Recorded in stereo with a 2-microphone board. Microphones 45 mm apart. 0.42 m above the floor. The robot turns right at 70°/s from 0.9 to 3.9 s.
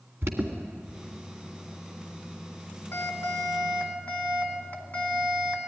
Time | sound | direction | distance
0.2 | an alarm | 65° right (ahead or behind) | 2.5 m